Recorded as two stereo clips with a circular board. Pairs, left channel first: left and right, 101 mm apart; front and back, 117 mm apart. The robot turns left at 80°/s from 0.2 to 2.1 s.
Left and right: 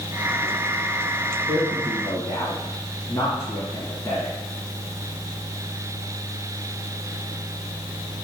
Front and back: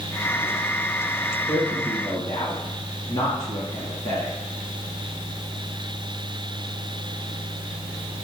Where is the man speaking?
90° left, 1.9 m; by 4.3 s 40° left, 1.9 m.